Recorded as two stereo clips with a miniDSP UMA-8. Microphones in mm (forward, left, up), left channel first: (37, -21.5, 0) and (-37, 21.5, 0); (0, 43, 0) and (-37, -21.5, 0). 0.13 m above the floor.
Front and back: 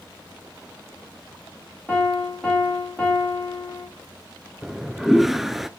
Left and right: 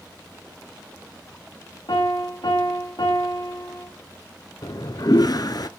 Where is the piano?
50° left, 7.5 m.